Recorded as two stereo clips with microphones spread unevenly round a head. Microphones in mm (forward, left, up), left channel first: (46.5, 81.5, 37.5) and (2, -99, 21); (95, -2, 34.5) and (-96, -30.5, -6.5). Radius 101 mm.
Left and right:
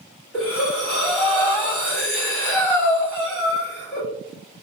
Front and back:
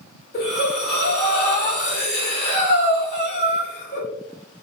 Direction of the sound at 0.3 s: 10° right.